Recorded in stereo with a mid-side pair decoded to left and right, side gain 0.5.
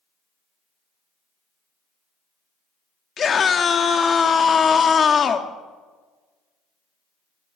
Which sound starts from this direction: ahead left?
A scream, at 3.2 s.